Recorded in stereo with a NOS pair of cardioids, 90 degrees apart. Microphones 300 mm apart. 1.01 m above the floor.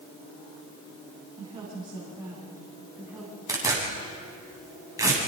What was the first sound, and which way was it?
A woman speaking, 20° right.